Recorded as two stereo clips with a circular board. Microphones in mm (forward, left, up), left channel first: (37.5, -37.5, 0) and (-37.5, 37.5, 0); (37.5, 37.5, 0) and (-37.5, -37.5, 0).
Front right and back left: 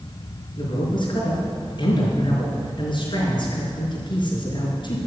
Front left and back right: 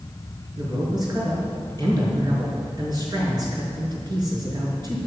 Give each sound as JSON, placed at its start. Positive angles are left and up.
{"t": 0.6, "sound": "a man speaking", "azimuth_deg": -85, "distance_m": 5.0}